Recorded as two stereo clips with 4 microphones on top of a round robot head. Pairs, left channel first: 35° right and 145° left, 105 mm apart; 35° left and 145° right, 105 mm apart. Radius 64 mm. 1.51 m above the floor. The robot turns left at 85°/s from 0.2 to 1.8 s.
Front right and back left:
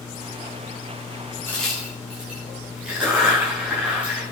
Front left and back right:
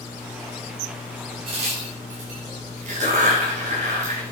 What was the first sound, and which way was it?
A crack, 105° right.